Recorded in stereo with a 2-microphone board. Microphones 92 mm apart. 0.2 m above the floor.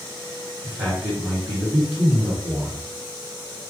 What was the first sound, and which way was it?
A man speaking, 20° right (ahead or behind).